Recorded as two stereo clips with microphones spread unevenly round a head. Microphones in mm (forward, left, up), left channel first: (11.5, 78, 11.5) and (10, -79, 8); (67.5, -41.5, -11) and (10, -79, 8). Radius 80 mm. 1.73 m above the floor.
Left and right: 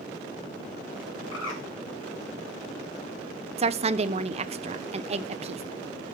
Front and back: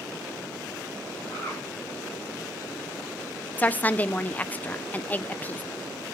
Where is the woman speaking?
40° right, 0.7 m.